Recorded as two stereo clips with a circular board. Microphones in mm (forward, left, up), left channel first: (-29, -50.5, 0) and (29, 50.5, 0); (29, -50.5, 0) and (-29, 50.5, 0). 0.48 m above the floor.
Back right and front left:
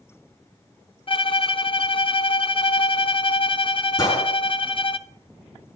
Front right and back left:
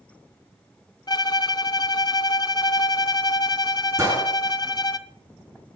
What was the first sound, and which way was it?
A violin, 100° right.